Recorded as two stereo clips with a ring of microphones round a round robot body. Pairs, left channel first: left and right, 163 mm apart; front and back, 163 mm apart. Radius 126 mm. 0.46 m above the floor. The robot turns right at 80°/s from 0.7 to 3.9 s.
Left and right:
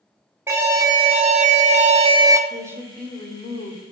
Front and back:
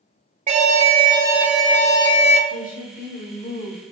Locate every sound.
0.5 s an alarm: 160° right, 0.9 m; by 2.4 s 25° right, 0.9 m
2.5 s a woman speaking: 30° right, 1.4 m; by 3.8 s 75° left, 1.4 m